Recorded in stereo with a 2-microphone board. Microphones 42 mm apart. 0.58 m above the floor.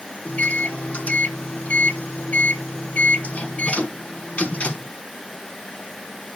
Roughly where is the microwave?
Left.